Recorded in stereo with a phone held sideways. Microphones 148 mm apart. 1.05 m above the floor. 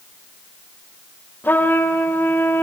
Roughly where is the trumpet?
Centre.